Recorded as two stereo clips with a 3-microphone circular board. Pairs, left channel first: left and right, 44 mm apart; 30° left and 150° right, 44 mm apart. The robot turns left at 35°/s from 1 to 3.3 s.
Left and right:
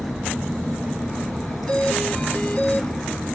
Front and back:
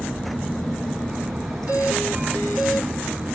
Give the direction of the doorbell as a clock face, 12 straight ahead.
7 o'clock.